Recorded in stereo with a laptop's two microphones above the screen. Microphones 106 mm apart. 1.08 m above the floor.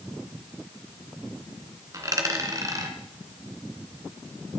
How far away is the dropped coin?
About 2.5 m.